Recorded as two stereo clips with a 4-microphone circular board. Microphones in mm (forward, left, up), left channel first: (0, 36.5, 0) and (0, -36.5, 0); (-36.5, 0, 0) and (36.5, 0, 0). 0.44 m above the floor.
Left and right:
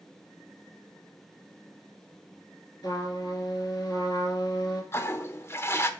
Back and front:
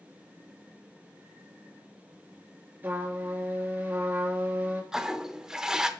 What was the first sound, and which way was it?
A trumpet, 60° left.